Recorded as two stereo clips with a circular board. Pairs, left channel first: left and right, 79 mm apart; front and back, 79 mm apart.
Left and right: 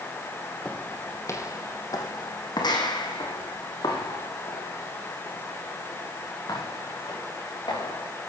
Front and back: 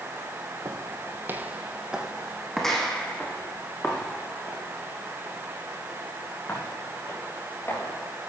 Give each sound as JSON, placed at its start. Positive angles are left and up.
{"t": 0.7, "sound": "footsteps", "azimuth_deg": 160, "distance_m": 2.5}